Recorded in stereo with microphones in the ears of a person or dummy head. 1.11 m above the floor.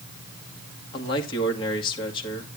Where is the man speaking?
25° left (ahead or behind), 2.5 m.